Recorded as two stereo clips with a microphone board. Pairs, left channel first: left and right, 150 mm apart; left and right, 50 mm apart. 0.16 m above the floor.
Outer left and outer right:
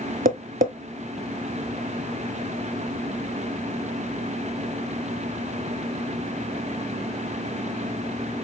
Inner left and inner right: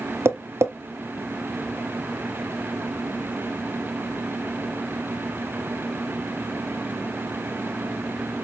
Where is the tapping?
70° right (ahead or behind), 0.5 m.